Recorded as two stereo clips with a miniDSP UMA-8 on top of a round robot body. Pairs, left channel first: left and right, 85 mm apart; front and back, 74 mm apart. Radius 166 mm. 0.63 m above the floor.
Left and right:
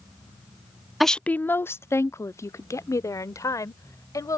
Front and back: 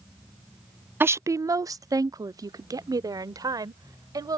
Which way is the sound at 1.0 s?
175° right.